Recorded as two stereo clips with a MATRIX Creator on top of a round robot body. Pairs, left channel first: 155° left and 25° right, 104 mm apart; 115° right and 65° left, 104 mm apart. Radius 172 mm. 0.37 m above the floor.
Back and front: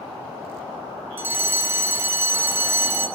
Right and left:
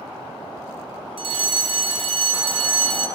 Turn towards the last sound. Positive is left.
turn(degrees=45)